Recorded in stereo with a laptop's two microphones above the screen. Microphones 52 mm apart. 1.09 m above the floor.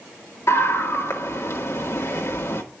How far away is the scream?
About 2 m.